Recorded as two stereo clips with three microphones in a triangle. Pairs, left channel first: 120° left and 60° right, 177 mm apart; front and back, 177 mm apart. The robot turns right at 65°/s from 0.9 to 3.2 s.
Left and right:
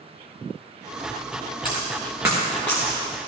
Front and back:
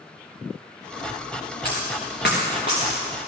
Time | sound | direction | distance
1.6 | a dropped coin | 25° right | 3 m